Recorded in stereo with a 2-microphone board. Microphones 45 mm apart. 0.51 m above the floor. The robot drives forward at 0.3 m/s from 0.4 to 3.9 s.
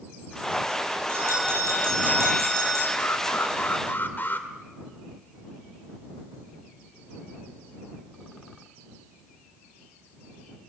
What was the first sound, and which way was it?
A bell, 60° right (ahead or behind).